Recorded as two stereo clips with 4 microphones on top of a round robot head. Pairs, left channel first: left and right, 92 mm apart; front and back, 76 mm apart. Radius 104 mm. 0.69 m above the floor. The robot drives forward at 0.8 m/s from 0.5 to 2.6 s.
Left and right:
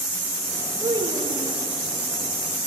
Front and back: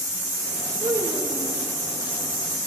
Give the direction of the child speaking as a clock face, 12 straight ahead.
5 o'clock.